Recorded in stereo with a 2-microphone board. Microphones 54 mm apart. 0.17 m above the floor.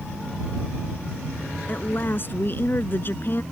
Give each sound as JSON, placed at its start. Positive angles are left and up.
{"t": 1.7, "sound": "a woman speaking", "side_deg": 45}